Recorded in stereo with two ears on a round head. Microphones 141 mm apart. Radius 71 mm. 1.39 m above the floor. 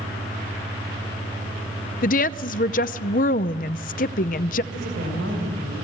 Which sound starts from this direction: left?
A woman speaking, at 2.0 s.